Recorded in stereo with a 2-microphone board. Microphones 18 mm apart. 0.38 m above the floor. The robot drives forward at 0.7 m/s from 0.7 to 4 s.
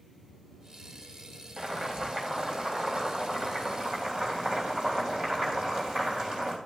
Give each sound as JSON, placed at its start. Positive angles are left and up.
{"t": 1.6, "sound": "boiling", "side_deg": -55, "distance_m": 2.5}